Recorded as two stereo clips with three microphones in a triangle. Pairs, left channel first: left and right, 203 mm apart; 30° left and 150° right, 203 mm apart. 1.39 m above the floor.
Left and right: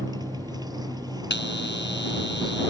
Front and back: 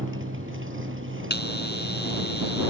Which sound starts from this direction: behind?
A motorcycle, at 0.0 s.